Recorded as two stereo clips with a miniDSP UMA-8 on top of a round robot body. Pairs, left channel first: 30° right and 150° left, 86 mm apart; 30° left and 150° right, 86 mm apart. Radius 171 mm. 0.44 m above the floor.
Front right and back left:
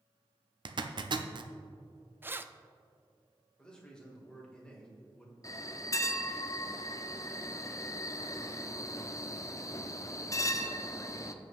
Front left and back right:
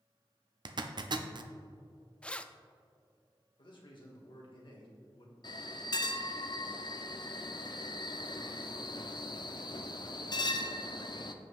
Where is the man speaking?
50° left, 2 m.